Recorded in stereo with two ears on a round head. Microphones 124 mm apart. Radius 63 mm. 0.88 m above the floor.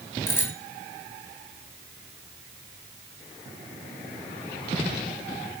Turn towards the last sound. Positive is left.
turn(degrees=20)  # may be behind; listen again after turning